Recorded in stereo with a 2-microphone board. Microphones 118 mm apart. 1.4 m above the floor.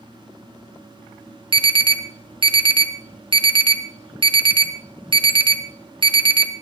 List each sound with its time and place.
1.5 s an alarm: 45° right (ahead or behind), 1.4 m